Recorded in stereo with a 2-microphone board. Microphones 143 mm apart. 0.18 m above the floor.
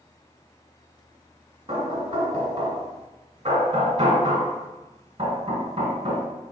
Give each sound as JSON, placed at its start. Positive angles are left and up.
{"t": 1.7, "sound": "knocking", "side_deg": -40, "distance_m": 1.2}